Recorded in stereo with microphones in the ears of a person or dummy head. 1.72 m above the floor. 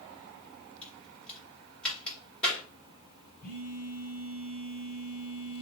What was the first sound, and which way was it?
A crack, 5° left (ahead or behind).